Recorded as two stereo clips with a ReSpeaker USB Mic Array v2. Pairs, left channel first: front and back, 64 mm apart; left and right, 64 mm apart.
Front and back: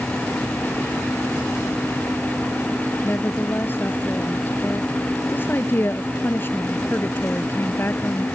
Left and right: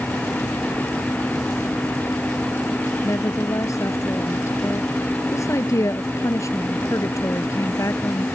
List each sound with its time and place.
3.0 s a woman speaking: 55° left